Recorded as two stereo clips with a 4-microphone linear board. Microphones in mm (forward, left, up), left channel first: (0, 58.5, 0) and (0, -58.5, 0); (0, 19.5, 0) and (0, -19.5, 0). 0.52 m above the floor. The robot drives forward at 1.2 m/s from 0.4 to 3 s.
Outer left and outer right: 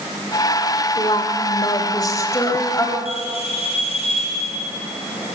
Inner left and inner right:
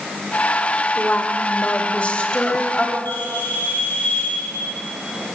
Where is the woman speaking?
50° left (ahead or behind), 1.7 m; by 3.0 s 25° left (ahead or behind), 3.5 m.